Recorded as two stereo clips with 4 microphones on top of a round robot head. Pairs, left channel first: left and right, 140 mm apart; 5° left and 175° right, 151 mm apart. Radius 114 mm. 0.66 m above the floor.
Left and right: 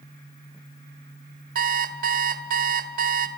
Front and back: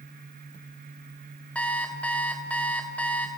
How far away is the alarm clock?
About 1.6 m.